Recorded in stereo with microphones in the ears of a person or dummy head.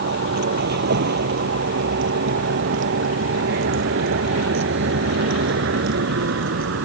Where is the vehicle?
55° right (ahead or behind); by 6.9 s 65° right (ahead or behind).